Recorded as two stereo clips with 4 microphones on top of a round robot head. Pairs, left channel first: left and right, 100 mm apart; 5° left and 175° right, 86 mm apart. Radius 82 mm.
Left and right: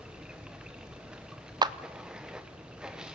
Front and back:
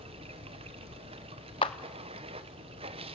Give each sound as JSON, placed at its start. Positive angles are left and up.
{"t": 0.0, "sound": "running water", "azimuth_deg": -175, "distance_m": 1.0}
{"t": 1.6, "sound": "a clap", "azimuth_deg": -45, "distance_m": 0.7}